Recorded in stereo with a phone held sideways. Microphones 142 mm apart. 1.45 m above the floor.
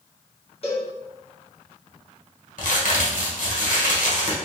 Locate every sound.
0.6 s a cowbell: 45° left (ahead or behind), 1.4 m
2.6 s a crack: 70° left (ahead or behind), 1.4 m